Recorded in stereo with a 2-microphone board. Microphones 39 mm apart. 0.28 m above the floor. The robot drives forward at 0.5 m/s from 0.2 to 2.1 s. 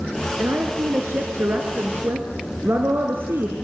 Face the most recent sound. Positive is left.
turn(degrees=-75)  # may be behind; listen again after turning